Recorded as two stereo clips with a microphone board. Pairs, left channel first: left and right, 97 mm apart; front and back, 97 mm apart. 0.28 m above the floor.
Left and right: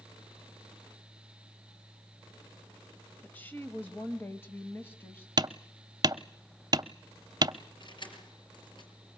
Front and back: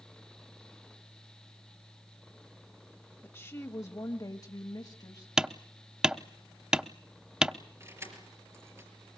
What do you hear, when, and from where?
3.2 s a woman speaking: 35° left, 1.3 m; by 5.3 s 25° left, 2 m
5.4 s hammering: 100° right, 0.6 m
7.8 s keys jangling: 120° left, 4.5 m